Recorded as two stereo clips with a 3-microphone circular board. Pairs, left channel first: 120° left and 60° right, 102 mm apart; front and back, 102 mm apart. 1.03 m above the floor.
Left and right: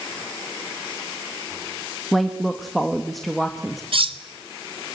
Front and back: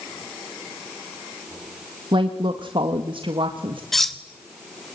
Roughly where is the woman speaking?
Behind right.